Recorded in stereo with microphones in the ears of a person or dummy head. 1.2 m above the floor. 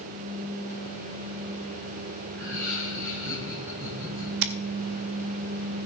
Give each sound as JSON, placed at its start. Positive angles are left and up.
{"t": 2.4, "sound": "laughter", "side_deg": -75, "distance_m": 8.5}
{"t": 4.4, "sound": "scissors", "side_deg": -55, "distance_m": 0.9}